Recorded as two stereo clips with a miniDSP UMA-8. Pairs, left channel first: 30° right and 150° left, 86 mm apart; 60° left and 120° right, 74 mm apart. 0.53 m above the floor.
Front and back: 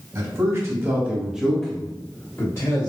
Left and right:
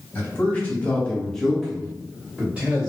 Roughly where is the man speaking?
Behind left.